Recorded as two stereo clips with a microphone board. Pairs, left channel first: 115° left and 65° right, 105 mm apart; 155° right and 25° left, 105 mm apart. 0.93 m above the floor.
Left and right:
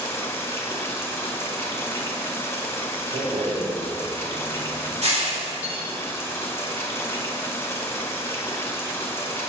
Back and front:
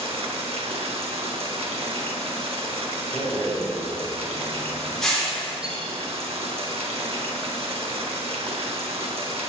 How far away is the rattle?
About 3 m.